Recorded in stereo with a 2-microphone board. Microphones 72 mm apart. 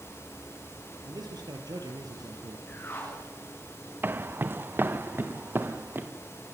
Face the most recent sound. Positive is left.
turn(degrees=-30)  # may be behind; listen again after turning